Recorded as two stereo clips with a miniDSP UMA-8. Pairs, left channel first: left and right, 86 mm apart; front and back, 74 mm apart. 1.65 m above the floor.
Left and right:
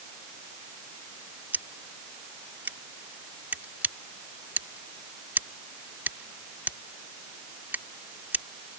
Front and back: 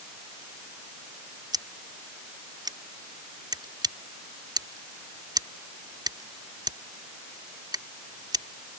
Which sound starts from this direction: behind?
Scissors, at 1.5 s.